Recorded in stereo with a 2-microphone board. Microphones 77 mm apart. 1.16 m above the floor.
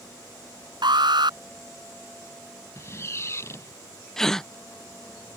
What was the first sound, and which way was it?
An alarm, 75° right (ahead or behind).